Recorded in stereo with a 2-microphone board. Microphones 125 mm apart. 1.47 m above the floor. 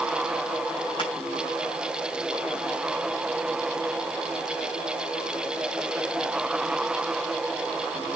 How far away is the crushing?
About 6 m.